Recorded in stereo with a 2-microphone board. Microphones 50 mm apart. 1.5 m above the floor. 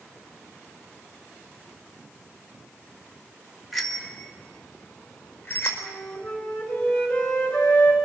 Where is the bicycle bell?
Centre (ahead or behind), 2.5 m; by 5.7 s 40° left (ahead or behind), 4 m.